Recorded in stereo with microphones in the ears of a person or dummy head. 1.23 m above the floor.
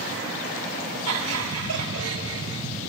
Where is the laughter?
85° right, 3.5 m; by 2.6 s 75° right (ahead or behind), 3 m.